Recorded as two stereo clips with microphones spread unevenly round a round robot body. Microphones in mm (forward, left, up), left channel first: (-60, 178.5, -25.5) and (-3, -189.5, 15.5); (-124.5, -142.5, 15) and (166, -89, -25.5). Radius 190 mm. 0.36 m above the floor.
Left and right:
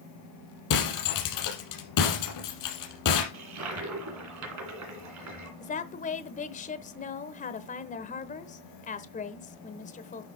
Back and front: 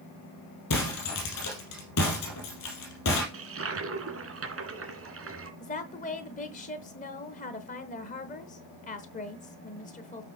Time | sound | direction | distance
0.7 | breaking glass | 140° left | 4 m
3.3 | a toilet flushing | 30° right | 2.5 m
5.6 | a woman speaking | 130° left | 0.9 m